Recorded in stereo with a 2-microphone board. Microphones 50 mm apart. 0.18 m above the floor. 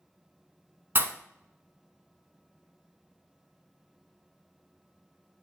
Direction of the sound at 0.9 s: 50° right (ahead or behind).